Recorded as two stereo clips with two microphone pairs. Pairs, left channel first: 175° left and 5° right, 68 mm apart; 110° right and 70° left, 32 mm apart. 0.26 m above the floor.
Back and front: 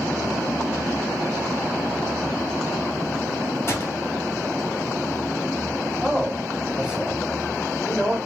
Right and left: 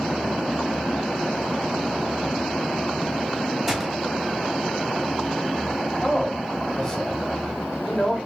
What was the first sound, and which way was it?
A gunshot, 140° left.